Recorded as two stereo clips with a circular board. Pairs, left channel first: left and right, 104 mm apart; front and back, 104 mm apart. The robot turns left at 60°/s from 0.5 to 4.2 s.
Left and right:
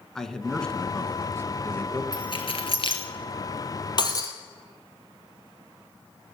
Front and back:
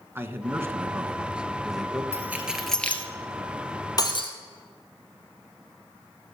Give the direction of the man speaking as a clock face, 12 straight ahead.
6 o'clock.